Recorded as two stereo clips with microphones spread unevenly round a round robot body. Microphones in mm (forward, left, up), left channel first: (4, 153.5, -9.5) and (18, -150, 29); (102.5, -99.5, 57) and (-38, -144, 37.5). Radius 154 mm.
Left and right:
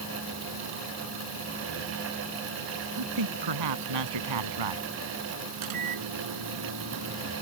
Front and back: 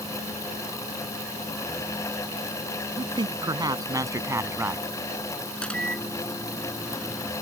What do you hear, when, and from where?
3.0 s a man speaking: 105° right; by 4.9 s 85° right
5.6 s a microwave: 65° right